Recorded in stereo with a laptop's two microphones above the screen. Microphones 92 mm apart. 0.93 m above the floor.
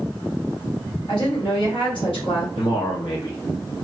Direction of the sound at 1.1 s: 65° left (ahead or behind).